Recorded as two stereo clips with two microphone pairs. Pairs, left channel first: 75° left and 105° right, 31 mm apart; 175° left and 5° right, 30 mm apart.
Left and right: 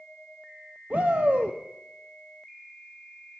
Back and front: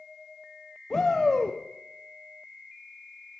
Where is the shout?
110° right, 0.6 m.